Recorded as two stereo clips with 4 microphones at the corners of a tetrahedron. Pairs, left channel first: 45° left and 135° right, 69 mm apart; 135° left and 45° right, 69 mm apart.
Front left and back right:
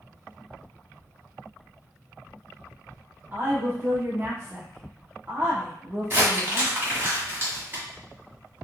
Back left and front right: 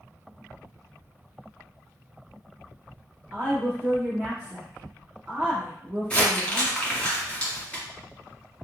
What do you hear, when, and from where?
3.3 s a woman speaking: 105° right, 1.3 m
6.1 s crumpling: 165° right, 1.7 m